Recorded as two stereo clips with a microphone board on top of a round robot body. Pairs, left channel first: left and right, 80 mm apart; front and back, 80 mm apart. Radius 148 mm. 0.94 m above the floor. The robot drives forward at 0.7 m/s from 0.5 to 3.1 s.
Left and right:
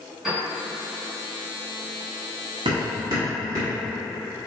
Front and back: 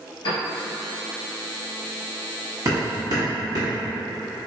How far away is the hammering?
About 0.7 m.